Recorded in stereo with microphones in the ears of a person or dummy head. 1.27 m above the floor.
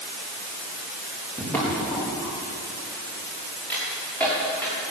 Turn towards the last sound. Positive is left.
turn(degrees=5)  # may be behind; listen again after turning